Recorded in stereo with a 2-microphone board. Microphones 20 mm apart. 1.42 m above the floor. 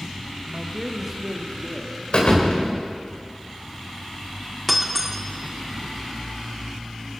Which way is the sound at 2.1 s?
55° left (ahead or behind).